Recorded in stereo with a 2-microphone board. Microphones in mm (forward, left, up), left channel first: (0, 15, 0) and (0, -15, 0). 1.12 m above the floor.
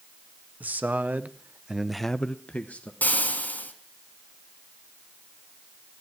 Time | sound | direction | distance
0.6 | a man speaking | 75° right (ahead or behind) | 1.7 m
3.0 | frying | 70° left (ahead or behind) | 2.5 m